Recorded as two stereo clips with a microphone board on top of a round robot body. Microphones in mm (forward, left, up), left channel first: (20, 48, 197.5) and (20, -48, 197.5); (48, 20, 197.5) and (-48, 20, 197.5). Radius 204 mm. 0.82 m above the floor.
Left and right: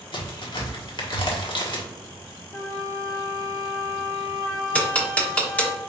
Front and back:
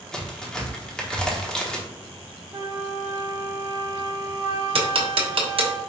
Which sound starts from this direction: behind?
Ticking, at 4.8 s.